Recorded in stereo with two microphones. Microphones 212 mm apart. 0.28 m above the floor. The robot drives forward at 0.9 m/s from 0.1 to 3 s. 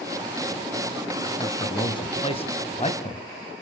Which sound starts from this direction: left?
A man speaking, at 1.4 s.